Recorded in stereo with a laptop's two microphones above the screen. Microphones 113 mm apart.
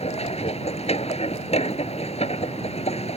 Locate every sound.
0.0 s a machine running: 75° left (ahead or behind)